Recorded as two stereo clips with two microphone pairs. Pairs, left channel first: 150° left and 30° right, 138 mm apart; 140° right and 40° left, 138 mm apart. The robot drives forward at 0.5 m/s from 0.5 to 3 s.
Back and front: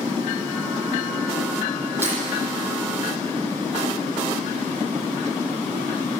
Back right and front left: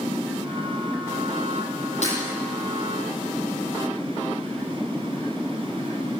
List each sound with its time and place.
2.0 s breaking glass: 105° right, 9.5 m